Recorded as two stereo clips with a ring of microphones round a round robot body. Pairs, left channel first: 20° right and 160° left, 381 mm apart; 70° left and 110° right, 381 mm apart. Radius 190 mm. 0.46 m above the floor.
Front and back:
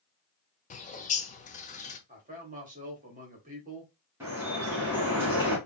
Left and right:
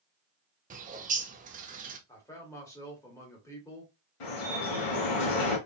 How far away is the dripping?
About 2 m.